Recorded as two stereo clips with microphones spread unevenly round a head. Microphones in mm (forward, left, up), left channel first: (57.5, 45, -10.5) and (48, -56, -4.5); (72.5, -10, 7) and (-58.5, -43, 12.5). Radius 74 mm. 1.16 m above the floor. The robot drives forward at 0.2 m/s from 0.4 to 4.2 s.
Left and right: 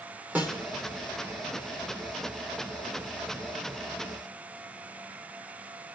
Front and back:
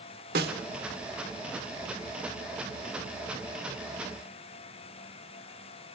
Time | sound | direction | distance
0.3 | a snare drum | 175° right | 1.6 m